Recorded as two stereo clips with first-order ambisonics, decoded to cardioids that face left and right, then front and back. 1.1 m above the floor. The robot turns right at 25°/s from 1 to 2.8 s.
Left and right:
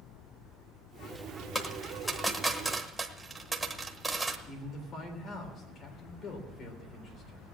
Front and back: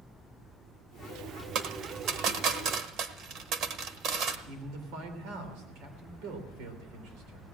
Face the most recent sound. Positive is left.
turn(degrees=150)